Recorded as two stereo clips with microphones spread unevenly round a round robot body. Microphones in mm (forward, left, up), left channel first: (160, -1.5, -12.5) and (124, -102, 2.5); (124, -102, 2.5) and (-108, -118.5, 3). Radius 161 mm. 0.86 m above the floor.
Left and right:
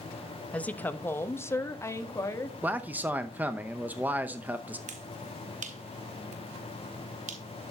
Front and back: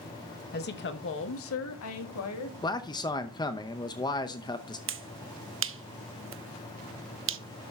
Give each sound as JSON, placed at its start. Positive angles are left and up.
{"t": 0.5, "sound": "a woman speaking", "azimuth_deg": 10, "distance_m": 1.0}
{"t": 2.6, "sound": "a man speaking", "azimuth_deg": -40, "distance_m": 0.8}
{"t": 4.9, "sound": "a finger snap", "azimuth_deg": -135, "distance_m": 0.9}